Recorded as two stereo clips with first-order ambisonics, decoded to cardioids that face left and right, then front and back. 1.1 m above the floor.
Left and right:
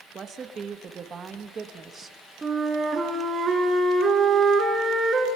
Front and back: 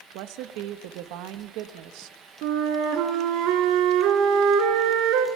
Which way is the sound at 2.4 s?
165° right.